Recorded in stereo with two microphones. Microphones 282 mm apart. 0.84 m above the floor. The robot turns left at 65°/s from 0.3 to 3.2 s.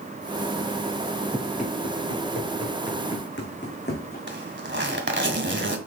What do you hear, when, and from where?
1.3 s running footsteps: 5° left (ahead or behind), 5 m; by 4.2 s 35° left (ahead or behind), 3 m
4.3 s a zipper: 45° right (ahead or behind), 1.7 m